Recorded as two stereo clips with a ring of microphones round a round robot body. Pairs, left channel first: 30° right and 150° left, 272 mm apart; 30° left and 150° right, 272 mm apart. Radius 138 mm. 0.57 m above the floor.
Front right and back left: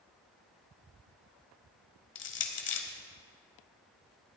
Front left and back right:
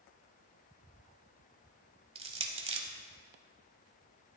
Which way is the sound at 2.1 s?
80° right.